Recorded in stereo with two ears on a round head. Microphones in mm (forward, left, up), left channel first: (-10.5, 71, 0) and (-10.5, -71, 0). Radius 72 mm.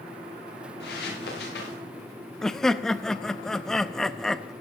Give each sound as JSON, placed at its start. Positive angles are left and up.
{"t": 0.8, "sound": "footsteps", "side_deg": 70, "distance_m": 5.5}
{"t": 2.4, "sound": "laughter", "side_deg": 5, "distance_m": 0.5}